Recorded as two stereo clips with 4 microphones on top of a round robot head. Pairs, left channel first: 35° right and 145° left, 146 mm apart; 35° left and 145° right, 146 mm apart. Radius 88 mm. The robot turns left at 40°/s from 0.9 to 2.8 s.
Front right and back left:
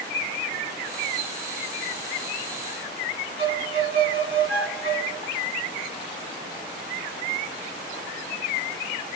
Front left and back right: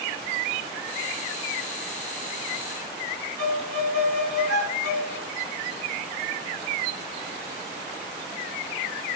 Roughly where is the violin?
Behind right.